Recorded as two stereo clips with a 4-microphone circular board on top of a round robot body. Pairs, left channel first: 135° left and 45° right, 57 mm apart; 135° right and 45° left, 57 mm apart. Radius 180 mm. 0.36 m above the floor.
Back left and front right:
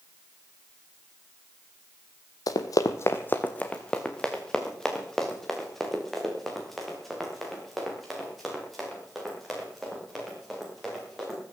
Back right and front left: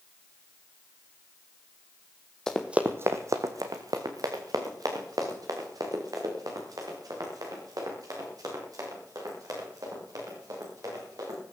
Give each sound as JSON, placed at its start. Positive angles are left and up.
{"t": 2.5, "sound": "running footsteps", "azimuth_deg": 145, "distance_m": 0.8}